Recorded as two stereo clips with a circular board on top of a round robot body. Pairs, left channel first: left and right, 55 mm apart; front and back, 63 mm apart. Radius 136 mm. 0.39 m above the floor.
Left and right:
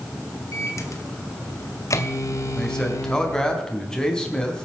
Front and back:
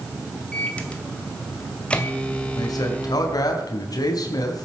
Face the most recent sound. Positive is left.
turn(degrees=15)